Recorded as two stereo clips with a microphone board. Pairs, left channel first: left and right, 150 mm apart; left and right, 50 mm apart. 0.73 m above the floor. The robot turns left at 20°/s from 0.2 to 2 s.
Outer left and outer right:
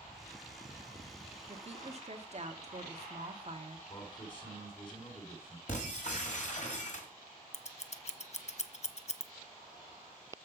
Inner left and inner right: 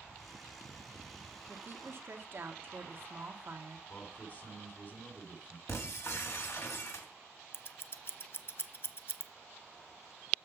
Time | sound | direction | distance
1.5 | a woman speaking | 40° right (ahead or behind) | 1.3 m
3.9 | a man speaking | 35° left (ahead or behind) | 2.5 m
5.7 | breaking glass | 55° left (ahead or behind) | 1.7 m
7.5 | scissors | 50° left (ahead or behind) | 0.5 m